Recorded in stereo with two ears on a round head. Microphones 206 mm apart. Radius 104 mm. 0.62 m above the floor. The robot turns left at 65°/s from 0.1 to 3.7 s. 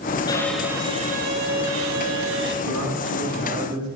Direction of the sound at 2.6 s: 90° right.